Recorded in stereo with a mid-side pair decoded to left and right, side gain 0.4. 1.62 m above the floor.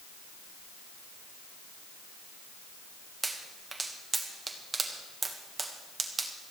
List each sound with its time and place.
3.2 s a pop: 30° right, 1.8 m